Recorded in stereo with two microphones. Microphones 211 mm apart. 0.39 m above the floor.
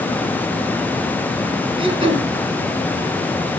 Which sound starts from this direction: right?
Throat clearing, at 1.8 s.